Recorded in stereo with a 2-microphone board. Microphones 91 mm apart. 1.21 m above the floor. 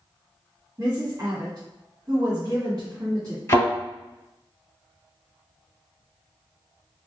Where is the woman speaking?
45° right (ahead or behind), 1.5 m.